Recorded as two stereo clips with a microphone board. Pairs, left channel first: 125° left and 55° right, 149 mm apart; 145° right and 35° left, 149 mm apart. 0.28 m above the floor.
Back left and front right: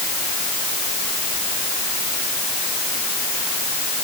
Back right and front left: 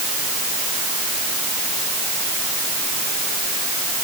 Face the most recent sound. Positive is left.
No sound to turn to.